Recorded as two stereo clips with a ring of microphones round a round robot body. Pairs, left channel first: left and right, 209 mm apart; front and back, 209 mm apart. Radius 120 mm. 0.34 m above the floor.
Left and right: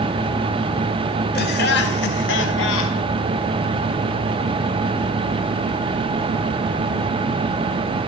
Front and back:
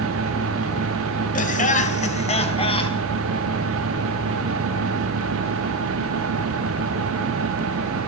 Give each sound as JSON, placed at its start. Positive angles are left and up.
{"t": 1.4, "sound": "laughter", "azimuth_deg": 45, "distance_m": 3.5}